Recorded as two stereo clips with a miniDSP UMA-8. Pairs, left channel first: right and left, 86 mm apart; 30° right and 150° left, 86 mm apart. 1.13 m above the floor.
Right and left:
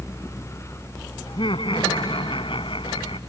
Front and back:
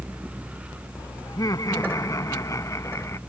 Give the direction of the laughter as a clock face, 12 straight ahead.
3 o'clock.